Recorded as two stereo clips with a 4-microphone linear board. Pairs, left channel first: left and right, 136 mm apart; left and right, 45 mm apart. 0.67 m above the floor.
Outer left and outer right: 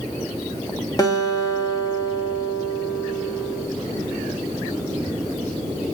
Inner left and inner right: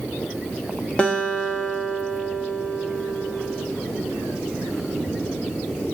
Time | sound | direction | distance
1.0 | a guitar | 25° left (ahead or behind) | 1.1 m